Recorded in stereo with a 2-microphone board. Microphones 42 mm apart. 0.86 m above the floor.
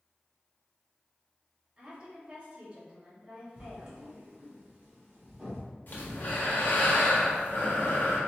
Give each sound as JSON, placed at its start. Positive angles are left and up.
{"t": 1.8, "sound": "a woman speaking", "side_deg": -30, "distance_m": 1.8}
{"t": 3.6, "sound": "writing", "side_deg": -35, "distance_m": 1.7}
{"t": 5.9, "sound": "breathing", "side_deg": 45, "distance_m": 0.9}